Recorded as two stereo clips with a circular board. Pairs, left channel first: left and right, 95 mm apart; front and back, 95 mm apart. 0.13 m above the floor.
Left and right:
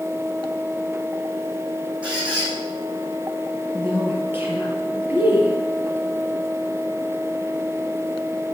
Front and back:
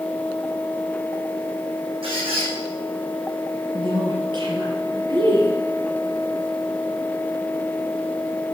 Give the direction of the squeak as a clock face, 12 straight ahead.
6 o'clock.